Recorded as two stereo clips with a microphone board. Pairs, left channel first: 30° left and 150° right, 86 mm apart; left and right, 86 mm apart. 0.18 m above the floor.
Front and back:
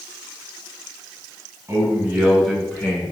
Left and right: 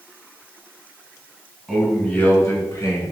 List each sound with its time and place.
1.7 s a man speaking: straight behind, 1.4 m; by 3.1 s 80° left, 1.7 m